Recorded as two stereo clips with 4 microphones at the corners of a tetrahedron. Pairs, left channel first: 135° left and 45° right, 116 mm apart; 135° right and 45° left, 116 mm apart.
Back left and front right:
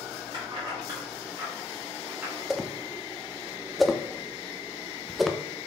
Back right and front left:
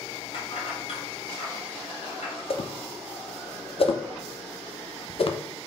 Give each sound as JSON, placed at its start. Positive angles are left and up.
{"t": 0.3, "sound": "keys jangling", "azimuth_deg": -95, "distance_m": 3.5}
{"t": 2.5, "sound": "a whoosh", "azimuth_deg": -135, "distance_m": 0.7}